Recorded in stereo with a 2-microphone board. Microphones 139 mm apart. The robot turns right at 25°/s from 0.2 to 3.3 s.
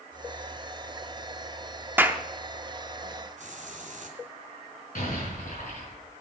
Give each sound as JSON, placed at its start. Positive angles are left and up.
{"t": 2.0, "sound": "a clap", "side_deg": -15, "distance_m": 0.8}
{"t": 3.4, "sound": "a hiss", "side_deg": -60, "distance_m": 2.5}
{"t": 5.0, "sound": "an explosion", "side_deg": 85, "distance_m": 5.0}